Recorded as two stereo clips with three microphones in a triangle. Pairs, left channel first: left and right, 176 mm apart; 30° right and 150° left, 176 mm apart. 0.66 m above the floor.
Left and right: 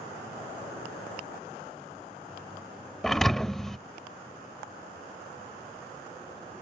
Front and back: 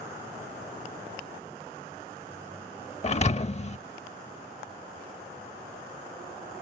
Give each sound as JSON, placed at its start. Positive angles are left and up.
{"t": 3.0, "sound": "a thud", "azimuth_deg": 5}